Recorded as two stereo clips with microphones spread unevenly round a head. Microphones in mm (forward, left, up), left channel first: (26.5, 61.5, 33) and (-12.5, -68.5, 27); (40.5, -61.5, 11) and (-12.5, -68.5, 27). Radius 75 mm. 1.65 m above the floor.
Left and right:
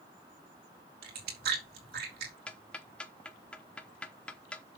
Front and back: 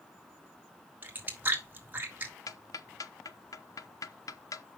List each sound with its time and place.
1.0 s chewing: 120° right, 4 m
2.5 s ticking: 10° right, 1.1 m